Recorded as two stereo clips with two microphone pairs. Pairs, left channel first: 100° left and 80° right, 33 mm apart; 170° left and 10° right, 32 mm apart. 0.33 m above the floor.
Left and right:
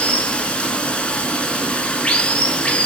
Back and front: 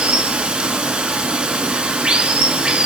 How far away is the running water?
About 0.8 m.